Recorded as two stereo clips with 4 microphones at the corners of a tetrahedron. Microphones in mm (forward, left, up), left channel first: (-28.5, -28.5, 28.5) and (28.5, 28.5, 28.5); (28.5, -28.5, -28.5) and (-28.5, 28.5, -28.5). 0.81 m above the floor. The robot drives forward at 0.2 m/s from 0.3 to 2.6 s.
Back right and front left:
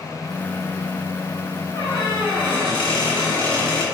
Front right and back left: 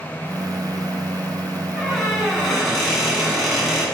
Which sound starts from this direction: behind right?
A squeak, at 1.8 s.